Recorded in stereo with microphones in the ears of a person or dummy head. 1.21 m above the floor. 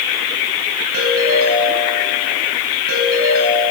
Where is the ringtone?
85° right, 9 m.